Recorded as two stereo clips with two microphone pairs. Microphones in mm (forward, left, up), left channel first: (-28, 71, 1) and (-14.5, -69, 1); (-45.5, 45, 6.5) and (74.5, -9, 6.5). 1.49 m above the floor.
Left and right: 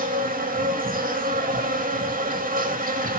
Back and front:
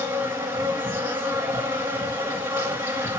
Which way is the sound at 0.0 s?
100° right.